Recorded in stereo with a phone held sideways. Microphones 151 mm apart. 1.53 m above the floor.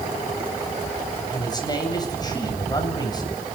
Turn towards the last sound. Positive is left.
turn(degrees=25)  # may be behind; listen again after turning